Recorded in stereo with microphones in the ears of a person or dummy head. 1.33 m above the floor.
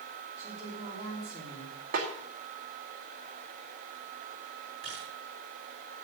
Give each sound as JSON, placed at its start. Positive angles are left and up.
{"t": 0.4, "sound": "a woman speaking", "side_deg": -20, "distance_m": 3.0}
{"t": 1.9, "sound": "a snare drum", "side_deg": -60, "distance_m": 2.0}
{"t": 4.8, "sound": "a camera shutter", "side_deg": -45, "distance_m": 5.0}